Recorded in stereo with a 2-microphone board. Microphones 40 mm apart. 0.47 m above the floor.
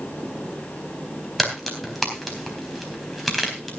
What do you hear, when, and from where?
1.4 s a crack: 5° left (ahead or behind), 4 m